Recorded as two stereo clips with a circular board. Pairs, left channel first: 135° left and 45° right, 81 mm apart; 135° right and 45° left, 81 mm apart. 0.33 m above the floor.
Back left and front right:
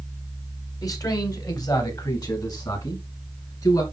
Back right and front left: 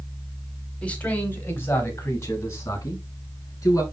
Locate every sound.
0.8 s a man speaking: 155° left, 2 m; by 3.8 s 175° left, 5 m